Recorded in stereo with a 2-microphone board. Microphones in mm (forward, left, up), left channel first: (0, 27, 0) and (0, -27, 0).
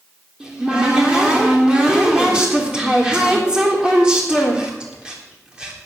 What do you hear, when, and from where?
0.4 s a cupboard door: 15° right (ahead or behind), 3.5 m